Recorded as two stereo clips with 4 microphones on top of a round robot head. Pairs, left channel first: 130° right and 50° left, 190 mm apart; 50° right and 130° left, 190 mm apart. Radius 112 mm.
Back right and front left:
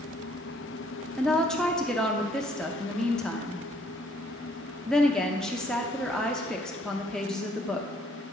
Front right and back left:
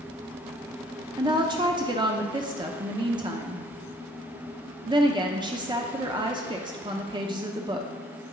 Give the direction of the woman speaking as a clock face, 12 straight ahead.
7 o'clock.